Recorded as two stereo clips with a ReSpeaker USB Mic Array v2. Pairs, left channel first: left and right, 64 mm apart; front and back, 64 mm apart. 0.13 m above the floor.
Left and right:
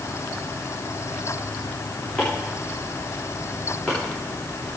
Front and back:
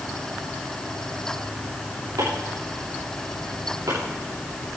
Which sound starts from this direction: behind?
Chopping, at 2.2 s.